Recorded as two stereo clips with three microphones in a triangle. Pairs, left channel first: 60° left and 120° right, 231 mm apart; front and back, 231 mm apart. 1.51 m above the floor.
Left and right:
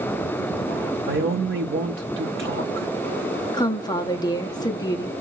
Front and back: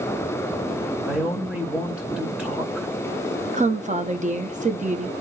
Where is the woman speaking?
130° left, 0.6 m.